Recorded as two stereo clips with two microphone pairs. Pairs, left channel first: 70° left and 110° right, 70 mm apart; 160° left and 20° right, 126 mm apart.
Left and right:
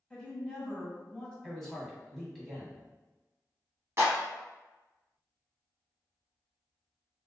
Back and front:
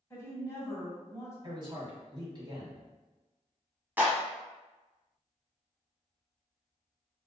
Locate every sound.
0.1 s a woman speaking: 125° left, 1.2 m
1.4 s a man speaking: 15° right, 1.4 m
4.0 s a clap: 90° right, 1.2 m